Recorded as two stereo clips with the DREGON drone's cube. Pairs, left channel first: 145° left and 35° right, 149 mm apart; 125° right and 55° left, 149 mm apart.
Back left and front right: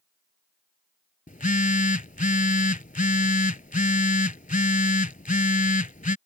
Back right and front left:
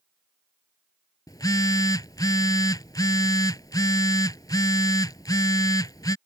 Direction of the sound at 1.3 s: 170° left.